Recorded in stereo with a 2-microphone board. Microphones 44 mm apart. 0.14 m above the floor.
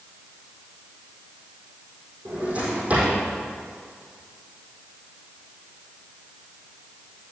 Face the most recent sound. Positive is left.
turn(degrees=-30)  # may be behind; listen again after turning